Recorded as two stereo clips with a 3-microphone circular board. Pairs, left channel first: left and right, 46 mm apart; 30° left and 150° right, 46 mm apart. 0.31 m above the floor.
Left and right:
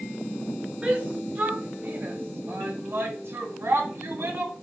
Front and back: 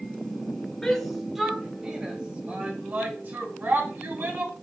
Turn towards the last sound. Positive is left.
turn(degrees=-115)